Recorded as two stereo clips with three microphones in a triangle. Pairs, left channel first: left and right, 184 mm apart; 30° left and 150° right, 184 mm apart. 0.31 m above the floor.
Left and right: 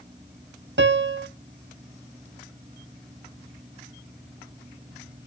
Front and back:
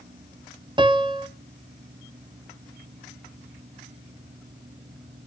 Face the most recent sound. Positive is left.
turn(degrees=-80)